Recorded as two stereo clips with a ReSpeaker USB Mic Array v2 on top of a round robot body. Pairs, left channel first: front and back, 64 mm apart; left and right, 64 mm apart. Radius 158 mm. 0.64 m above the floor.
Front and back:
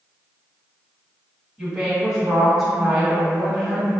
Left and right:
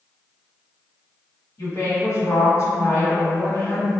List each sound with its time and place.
1.6 s a woman speaking: 95° left, 1.7 m